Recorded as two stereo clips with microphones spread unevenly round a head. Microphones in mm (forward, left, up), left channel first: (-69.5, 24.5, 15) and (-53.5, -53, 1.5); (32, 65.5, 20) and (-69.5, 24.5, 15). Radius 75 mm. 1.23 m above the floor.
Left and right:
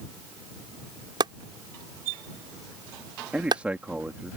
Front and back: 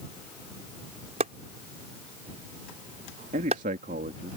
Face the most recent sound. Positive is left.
turn(degrees=-155)